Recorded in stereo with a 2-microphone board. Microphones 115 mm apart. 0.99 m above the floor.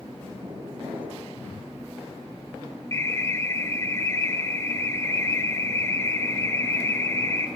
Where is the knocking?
45° right (ahead or behind), 8.5 m.